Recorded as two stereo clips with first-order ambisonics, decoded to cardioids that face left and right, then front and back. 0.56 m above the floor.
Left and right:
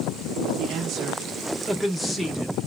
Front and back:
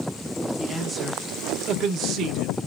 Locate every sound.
0.6 s a man speaking: 100° right, 0.7 m; by 2.5 s 155° left, 1.0 m